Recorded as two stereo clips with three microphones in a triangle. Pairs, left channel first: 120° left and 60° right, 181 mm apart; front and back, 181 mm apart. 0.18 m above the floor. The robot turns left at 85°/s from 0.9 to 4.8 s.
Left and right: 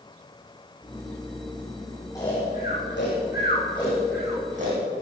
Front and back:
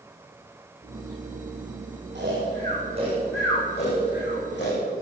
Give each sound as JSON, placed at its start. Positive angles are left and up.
{"t": 2.1, "sound": "snoring", "azimuth_deg": -165, "distance_m": 6.5}